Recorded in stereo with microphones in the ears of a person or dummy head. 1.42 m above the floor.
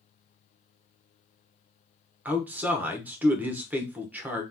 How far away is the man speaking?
About 0.9 m.